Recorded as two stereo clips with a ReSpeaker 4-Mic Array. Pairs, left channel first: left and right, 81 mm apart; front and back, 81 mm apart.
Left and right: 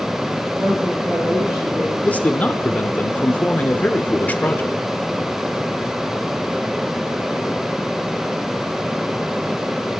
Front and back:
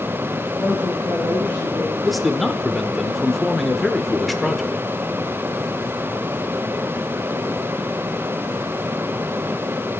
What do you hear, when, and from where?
0.6 s a woman speaking: 40° right, 3.5 m; by 1.9 s 30° right, 3 m
2.0 s a man speaking: 85° left, 0.8 m